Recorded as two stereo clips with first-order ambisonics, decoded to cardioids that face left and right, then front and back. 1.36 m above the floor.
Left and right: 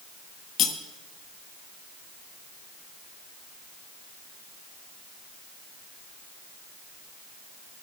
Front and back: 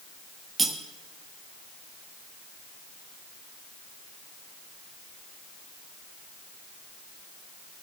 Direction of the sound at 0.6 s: 115° left.